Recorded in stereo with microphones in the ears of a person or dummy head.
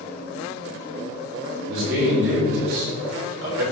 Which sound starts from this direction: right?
A man speaking, at 1.7 s.